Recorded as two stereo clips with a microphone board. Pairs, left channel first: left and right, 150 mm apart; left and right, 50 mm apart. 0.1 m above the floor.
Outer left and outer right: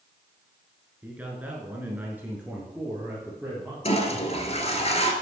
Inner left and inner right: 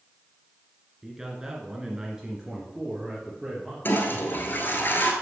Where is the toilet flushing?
45° left (ahead or behind), 1.4 m.